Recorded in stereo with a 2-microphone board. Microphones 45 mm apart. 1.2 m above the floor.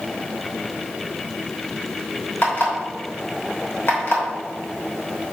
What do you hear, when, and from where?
2.4 s an alarm clock: 50° left (ahead or behind), 3 m